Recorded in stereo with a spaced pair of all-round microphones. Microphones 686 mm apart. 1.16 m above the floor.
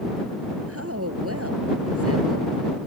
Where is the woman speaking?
20° right (ahead or behind).